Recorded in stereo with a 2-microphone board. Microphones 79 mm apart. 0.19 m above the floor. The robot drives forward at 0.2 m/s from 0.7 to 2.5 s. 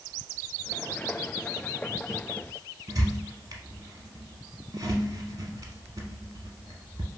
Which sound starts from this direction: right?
A squeak, at 2.9 s.